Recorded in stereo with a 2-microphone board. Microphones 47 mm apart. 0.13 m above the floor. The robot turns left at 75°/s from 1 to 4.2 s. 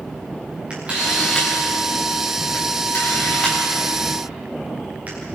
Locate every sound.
0.7 s a camera shutter: 20° right (ahead or behind), 8.5 m; by 5.2 s 40° right (ahead or behind), 8.5 m